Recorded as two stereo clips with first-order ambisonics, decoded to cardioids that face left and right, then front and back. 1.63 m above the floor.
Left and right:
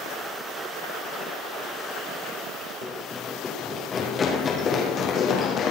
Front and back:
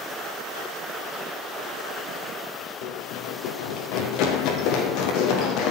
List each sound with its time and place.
2.8 s running footsteps: 15° left, 5 m; by 5.7 s 30° left, 5.5 m